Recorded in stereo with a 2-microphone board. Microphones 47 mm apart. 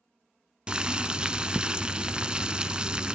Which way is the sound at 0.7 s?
20° right (ahead or behind).